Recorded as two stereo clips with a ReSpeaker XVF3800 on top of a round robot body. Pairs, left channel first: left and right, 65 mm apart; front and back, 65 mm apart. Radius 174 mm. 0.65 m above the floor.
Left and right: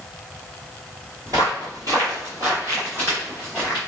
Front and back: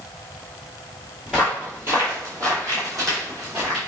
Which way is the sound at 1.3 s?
90° right.